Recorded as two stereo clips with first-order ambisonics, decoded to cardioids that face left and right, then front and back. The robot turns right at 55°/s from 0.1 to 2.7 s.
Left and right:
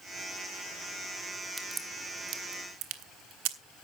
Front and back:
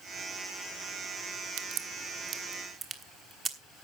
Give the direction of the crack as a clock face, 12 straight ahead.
6 o'clock.